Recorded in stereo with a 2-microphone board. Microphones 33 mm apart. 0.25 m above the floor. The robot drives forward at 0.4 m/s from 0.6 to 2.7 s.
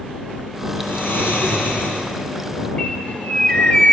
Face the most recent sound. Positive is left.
turn(degrees=35)  # may be behind; listen again after turning